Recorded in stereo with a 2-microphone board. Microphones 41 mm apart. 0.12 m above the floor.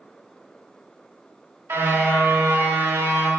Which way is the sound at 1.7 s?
85° right.